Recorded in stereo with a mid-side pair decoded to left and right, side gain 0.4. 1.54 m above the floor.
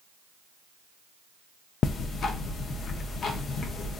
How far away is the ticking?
About 0.5 m.